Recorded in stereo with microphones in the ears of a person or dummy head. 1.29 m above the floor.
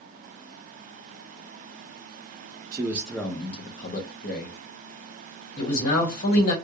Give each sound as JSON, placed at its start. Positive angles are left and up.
{"t": 2.7, "sound": "a man speaking", "side_deg": -25, "distance_m": 0.5}
{"t": 5.6, "sound": "a man speaking", "side_deg": 55, "distance_m": 1.5}